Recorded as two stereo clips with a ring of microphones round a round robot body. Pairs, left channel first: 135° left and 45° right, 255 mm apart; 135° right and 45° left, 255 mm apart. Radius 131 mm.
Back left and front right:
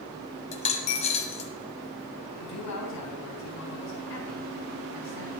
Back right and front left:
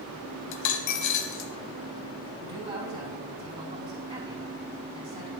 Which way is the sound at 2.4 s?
115° left.